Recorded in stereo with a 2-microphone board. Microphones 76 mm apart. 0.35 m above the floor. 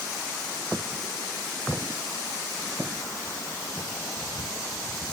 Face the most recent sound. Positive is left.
No sound to turn to.